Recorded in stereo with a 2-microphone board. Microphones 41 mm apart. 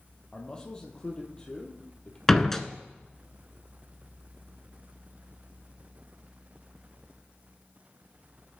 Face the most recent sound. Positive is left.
turn(degrees=10)  # may be behind; listen again after turning